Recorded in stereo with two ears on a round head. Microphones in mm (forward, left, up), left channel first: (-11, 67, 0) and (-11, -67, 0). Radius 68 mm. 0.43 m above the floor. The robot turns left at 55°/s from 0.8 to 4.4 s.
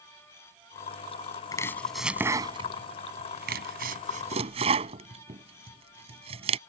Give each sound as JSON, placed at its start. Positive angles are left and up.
{"t": 1.5, "sound": "chopping", "side_deg": 25}